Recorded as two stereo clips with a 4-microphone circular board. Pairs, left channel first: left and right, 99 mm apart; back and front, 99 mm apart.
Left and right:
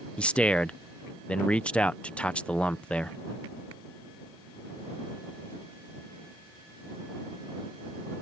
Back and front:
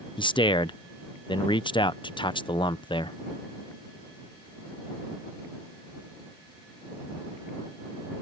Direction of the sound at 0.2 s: 165° left.